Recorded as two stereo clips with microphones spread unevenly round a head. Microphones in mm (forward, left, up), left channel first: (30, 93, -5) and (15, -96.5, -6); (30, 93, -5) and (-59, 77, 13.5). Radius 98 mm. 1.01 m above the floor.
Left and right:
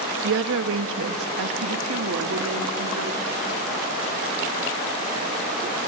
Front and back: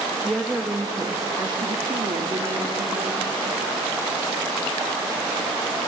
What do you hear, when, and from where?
0.2 s a woman speaking: 75° right, 1.3 m; by 3.4 s 125° right, 2.5 m